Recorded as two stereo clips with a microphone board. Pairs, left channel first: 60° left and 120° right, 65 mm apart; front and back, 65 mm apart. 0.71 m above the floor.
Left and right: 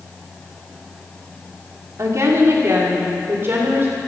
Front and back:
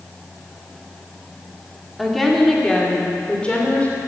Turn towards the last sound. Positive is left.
turn(degrees=-65)